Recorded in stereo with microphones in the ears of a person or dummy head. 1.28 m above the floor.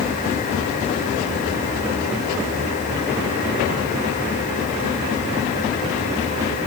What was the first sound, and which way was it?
Only background noise.